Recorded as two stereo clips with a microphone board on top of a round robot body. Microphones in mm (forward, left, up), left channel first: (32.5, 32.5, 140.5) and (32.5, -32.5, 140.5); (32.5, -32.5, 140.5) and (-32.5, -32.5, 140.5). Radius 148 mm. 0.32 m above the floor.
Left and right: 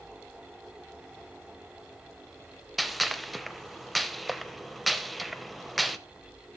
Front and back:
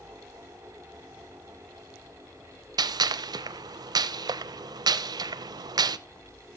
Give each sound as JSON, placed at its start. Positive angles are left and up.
{"t": 2.8, "sound": "a gunshot", "azimuth_deg": 180, "distance_m": 0.5}